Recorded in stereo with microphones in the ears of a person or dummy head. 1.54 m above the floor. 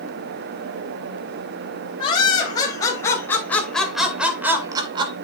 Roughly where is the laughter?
Left.